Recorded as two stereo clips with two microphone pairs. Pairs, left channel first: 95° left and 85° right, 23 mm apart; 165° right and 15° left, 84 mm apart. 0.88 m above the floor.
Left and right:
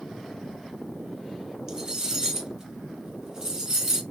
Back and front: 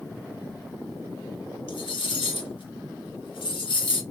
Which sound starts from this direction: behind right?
Cutlery clinking, at 1.7 s.